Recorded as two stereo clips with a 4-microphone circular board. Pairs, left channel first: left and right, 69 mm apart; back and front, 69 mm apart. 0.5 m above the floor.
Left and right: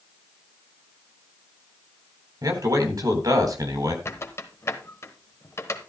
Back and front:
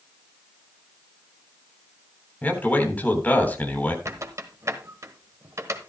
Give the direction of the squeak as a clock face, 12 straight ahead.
11 o'clock.